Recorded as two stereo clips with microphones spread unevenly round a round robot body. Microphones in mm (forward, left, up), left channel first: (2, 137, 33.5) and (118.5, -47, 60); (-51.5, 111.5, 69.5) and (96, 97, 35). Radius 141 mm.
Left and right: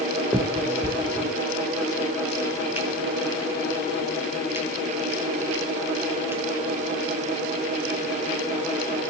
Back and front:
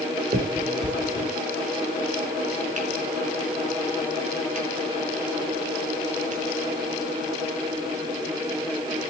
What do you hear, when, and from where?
0.3 s a finger snap: 20° left, 6 m